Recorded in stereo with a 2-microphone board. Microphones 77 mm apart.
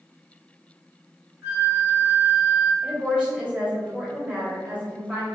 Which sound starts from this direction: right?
A flute, at 1.4 s.